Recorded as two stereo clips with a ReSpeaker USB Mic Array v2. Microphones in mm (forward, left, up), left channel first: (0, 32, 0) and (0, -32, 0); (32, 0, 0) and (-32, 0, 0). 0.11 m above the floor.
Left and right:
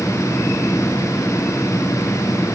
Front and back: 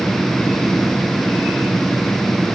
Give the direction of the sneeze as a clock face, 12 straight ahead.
I don't hear a sneeze.